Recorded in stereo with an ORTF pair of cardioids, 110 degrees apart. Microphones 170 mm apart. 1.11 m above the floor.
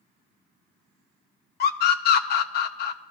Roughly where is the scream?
Ahead left.